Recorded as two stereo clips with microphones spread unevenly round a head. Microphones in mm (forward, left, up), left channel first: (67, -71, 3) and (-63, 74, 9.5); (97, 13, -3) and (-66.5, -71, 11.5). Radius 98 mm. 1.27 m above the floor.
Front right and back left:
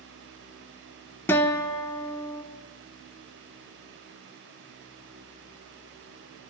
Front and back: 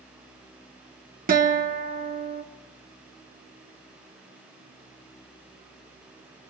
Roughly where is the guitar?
Behind right.